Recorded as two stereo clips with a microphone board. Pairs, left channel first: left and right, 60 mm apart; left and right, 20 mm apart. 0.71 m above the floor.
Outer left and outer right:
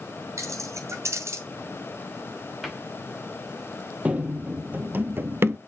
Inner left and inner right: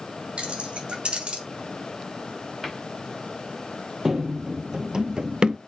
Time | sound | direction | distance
0.4 | keys jangling | 55° right (ahead or behind) | 2.5 m
2.6 | a cupboard door | centre (ahead or behind) | 2 m
4.0 | running footsteps | 20° right (ahead or behind) | 1.2 m